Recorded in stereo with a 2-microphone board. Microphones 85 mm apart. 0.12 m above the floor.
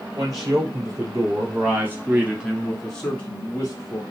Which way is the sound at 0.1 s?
45° right (ahead or behind).